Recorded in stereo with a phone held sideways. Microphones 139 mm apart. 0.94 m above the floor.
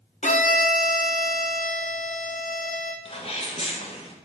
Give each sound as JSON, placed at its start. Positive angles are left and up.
{"t": 0.2, "sound": "a violin", "side_deg": 60, "distance_m": 0.6}
{"t": 3.0, "sound": "a sneeze", "side_deg": 45, "distance_m": 0.7}